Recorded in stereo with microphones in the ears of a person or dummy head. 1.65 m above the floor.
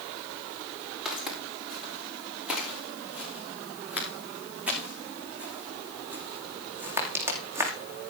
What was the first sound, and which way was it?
Footsteps, centre (ahead or behind).